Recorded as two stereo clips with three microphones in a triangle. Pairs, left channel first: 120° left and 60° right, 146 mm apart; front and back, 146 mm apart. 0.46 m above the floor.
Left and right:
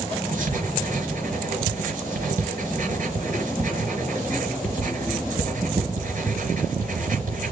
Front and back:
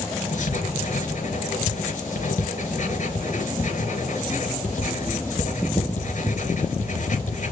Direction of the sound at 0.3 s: 30° right.